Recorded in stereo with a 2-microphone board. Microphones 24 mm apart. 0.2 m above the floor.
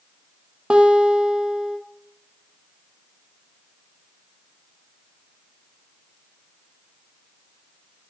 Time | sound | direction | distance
0.7 | a guitar | 40° right (ahead or behind) | 1.0 m